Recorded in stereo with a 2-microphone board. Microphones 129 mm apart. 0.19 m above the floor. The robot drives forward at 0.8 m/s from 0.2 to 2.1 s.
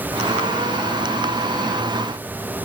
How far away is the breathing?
No breathing in this recording.